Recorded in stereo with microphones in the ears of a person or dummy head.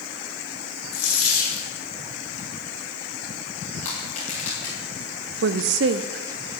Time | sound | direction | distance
0.9 | a dropped coin | 65° left (ahead or behind) | 7 m
3.8 | crushing | 35° left (ahead or behind) | 5.5 m
5.4 | a woman speaking | 75° right (ahead or behind) | 0.8 m